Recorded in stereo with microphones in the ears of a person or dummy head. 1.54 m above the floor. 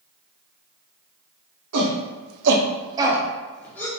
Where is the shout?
80° right, 1.1 m; by 3.9 s 15° left (ahead or behind), 1.3 m.